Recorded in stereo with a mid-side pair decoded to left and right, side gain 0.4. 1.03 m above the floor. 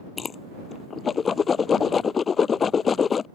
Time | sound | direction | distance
0.2 | a whoosh | 50° left | ?